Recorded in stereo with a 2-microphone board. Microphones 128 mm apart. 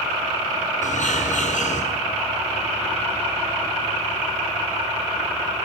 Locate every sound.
0.8 s a bird: 70° left (ahead or behind), 8 m